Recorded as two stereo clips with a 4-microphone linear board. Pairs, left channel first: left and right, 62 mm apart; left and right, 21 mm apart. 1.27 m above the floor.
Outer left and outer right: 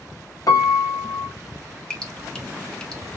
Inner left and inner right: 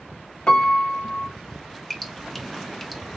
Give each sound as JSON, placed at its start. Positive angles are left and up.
{"t": 0.5, "sound": "a piano", "side_deg": 65, "distance_m": 0.6}
{"t": 1.9, "sound": "dripping", "side_deg": 10, "distance_m": 0.7}